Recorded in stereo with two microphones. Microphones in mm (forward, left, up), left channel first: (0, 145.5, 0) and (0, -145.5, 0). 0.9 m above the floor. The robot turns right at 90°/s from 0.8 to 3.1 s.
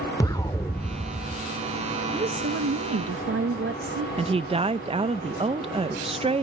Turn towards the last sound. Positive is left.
turn(degrees=-20)  # may be behind; listen again after turning